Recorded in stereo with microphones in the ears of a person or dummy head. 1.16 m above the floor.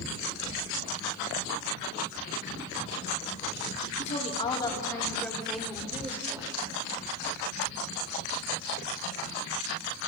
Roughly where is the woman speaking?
Left.